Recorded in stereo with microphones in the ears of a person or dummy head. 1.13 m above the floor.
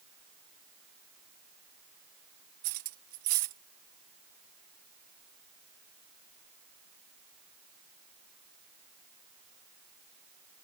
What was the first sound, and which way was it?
Cutlery clinking, 45° right (ahead or behind).